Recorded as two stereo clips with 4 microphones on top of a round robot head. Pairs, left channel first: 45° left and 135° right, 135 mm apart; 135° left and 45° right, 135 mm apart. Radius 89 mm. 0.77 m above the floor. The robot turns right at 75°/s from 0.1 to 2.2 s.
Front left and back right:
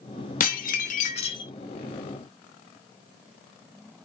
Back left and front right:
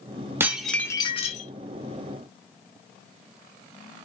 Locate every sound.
0.4 s dishes clattering: 30° left, 0.8 m; by 1.5 s 110° left, 0.8 m